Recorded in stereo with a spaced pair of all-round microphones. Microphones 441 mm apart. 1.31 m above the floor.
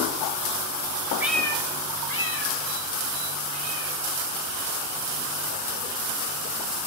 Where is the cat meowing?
5° right (ahead or behind), 0.6 m; by 5.9 s 30° left (ahead or behind), 4 m.